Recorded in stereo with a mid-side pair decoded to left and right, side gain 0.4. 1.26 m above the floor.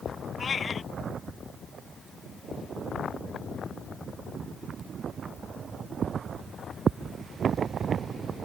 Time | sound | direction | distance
0.4 | a cat meowing | 45° left | ?